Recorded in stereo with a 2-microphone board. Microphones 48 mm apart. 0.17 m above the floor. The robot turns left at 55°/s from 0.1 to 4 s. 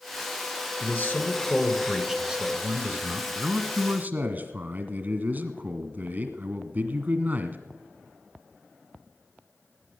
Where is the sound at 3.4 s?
40° right, 1.3 m; by 7.6 s 75° right, 1.3 m.